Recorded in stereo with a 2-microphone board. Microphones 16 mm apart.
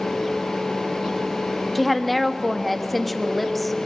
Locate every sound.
1.8 s a woman speaking: 10° left (ahead or behind), 1.5 m